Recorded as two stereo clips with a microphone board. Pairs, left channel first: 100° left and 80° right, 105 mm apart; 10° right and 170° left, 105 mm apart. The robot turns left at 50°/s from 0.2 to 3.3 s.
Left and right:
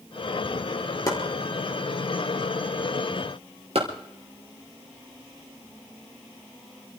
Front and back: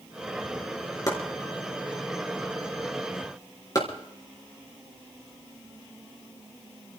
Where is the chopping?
45° left, 4 m; by 7.0 s 65° right, 4 m.